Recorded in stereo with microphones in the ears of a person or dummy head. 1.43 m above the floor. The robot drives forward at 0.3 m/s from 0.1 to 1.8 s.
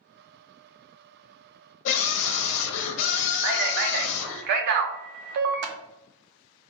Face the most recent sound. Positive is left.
turn(degrees=-60)  # may be behind; listen again after turning